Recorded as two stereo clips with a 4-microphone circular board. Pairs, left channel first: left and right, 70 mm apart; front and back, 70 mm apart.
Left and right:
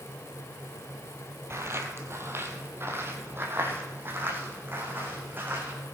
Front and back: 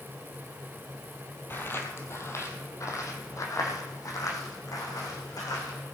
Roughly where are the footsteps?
Ahead right.